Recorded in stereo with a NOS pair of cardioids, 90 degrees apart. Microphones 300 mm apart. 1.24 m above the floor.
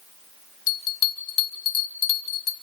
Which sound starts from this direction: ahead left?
A bell, at 0.7 s.